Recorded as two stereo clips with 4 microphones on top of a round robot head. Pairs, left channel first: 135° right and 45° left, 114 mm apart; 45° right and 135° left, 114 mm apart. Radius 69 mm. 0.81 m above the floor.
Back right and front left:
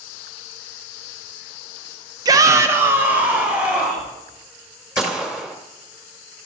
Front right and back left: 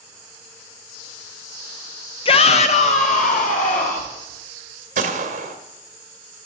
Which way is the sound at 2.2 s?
10° right.